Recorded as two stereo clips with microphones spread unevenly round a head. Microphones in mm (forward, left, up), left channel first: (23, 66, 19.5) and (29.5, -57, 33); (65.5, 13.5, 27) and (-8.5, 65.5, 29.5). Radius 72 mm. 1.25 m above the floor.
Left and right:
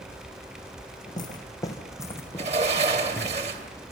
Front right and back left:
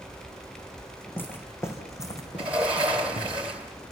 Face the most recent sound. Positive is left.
turn(degrees=-135)